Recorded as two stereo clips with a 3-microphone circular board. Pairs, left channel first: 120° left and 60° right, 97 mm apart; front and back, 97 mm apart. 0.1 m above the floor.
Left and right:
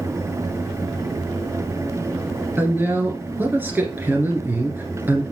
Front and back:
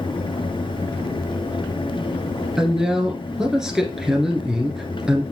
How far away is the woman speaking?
About 1.8 m.